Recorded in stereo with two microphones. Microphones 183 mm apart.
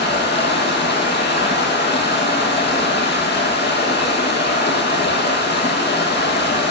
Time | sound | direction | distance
0.0 | running water | 70° left (ahead or behind) | 1.5 m